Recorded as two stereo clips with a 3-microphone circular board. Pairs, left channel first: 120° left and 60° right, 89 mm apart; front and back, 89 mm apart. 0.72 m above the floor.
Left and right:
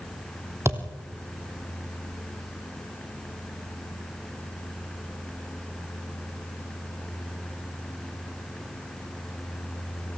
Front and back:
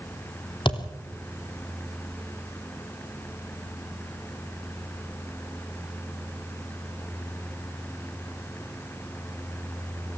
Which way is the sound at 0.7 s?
5° right.